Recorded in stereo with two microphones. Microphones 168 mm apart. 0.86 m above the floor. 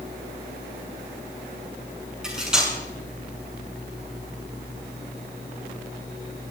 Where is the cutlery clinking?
5° right (ahead or behind), 6.5 m.